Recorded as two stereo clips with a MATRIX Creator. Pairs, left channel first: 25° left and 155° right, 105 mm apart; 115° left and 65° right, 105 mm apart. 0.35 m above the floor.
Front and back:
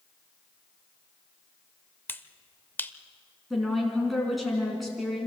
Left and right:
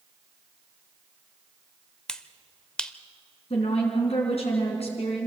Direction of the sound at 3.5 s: 110° left.